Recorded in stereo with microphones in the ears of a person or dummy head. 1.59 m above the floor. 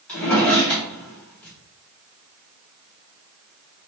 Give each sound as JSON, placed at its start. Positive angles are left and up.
{"t": 0.1, "sound": "a drawer", "side_deg": 10, "distance_m": 1.0}